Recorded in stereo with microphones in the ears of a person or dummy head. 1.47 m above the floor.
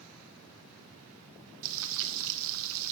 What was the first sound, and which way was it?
Frying, 70° right (ahead or behind).